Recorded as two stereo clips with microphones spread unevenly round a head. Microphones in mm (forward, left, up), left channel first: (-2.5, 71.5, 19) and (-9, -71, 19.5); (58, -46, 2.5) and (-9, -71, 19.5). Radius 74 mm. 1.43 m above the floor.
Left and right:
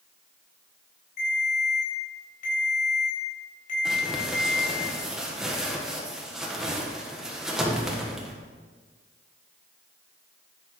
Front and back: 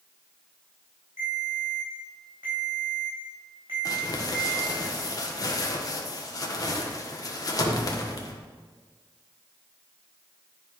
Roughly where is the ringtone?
Behind left.